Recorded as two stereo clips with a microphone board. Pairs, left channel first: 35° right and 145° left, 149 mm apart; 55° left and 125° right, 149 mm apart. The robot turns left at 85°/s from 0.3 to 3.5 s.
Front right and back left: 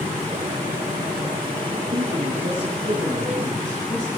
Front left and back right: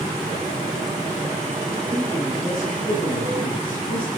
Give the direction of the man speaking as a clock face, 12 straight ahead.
6 o'clock.